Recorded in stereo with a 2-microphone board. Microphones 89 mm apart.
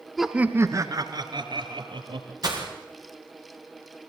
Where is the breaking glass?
45° right (ahead or behind), 5.5 m.